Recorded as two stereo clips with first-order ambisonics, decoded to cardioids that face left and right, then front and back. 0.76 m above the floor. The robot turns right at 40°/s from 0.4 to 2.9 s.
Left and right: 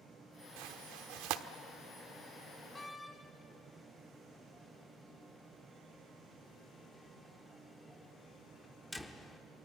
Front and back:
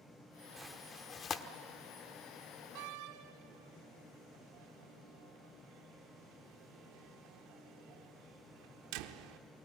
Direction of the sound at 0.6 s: 95° right.